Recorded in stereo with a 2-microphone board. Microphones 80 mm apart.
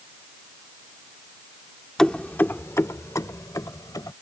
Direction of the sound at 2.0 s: 10° left (ahead or behind).